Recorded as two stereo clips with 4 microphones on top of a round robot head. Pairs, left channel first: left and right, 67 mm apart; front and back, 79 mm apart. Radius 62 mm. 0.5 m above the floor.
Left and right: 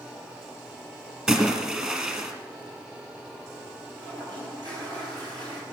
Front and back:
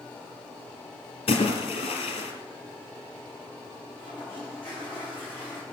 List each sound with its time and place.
1.3 s a splash: 15° right, 2.5 m
4.0 s a toilet flushing: 75° right, 6 m